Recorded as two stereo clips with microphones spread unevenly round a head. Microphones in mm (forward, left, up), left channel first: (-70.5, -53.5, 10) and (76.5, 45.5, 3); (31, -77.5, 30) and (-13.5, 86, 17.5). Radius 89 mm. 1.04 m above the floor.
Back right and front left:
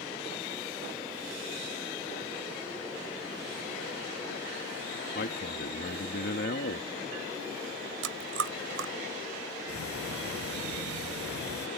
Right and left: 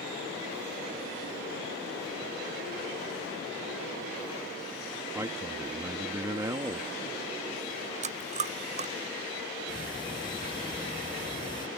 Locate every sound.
5.2 s a man speaking: straight behind
8.0 s chewing: 55° left
9.7 s ticking: 140° right